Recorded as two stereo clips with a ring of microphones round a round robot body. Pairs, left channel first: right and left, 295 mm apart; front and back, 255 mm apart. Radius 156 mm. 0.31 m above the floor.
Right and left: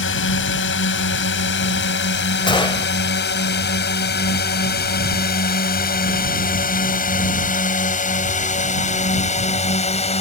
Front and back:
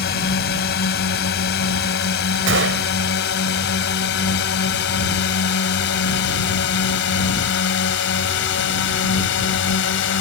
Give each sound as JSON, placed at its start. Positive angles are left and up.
{"t": 0.0, "sound": "a drone", "azimuth_deg": -50}
{"t": 2.5, "sound": "a gunshot", "azimuth_deg": -160}